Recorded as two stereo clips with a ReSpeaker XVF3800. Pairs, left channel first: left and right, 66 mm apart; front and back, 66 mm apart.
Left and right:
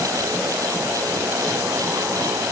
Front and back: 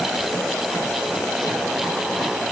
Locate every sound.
Only background noise.